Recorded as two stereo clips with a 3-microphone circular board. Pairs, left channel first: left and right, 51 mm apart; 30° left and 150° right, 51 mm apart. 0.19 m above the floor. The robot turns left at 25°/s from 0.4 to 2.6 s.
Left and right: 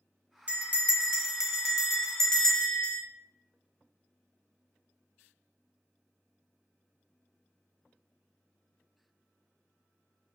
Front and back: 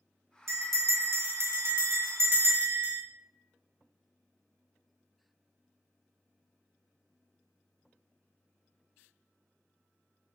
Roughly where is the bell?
Behind right.